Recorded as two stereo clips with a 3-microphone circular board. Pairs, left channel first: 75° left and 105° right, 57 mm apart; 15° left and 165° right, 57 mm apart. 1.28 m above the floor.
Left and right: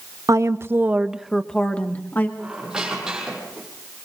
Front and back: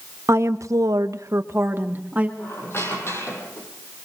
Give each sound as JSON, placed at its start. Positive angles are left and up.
{"t": 0.3, "sound": "a woman speaking", "azimuth_deg": -125, "distance_m": 1.3}
{"t": 2.4, "sound": "a squeak", "azimuth_deg": -25, "distance_m": 7.0}